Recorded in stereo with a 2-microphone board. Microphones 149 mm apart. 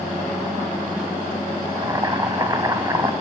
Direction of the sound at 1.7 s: 25° right (ahead or behind).